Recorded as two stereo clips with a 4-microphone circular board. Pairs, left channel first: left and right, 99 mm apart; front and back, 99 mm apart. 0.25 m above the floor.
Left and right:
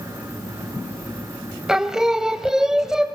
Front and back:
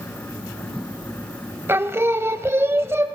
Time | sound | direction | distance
1.7 | singing | 165° right | 0.6 m